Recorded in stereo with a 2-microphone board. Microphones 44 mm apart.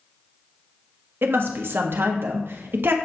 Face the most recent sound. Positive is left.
turn(degrees=-55)  # may be behind; listen again after turning